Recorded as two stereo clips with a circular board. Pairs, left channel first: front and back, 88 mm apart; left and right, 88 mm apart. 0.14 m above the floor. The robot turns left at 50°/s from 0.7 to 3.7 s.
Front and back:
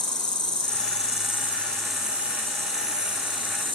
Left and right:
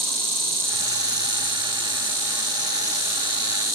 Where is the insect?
30° right, 4.5 m; by 3.8 s straight behind, 4.5 m.